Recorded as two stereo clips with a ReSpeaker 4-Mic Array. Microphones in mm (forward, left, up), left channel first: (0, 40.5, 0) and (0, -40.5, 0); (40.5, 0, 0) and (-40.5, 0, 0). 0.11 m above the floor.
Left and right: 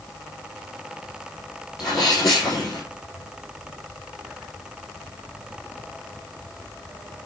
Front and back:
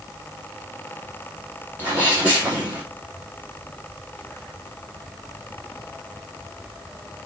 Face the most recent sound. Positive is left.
turn(degrees=120)